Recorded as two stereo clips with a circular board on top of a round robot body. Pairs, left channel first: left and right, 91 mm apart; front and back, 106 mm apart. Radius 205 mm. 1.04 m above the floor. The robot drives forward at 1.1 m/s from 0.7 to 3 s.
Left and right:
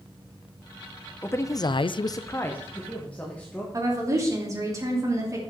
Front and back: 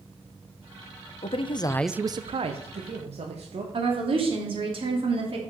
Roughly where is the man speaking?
Ahead left.